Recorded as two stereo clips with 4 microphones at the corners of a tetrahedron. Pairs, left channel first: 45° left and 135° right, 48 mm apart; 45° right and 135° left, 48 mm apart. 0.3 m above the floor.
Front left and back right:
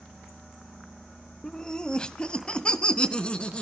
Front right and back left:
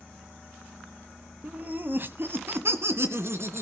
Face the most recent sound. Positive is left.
turn(degrees=110)